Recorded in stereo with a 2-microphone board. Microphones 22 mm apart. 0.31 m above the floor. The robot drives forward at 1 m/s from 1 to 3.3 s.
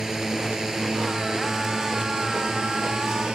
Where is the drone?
25° right (ahead or behind); by 3.4 s 45° right (ahead or behind).